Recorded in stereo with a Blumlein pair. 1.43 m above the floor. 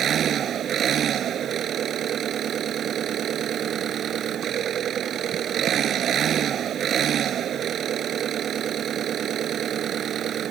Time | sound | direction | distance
0.0 | an engine running | 25° right | ?